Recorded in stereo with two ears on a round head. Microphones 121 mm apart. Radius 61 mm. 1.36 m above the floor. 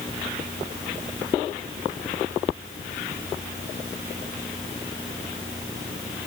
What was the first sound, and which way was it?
Only background noise.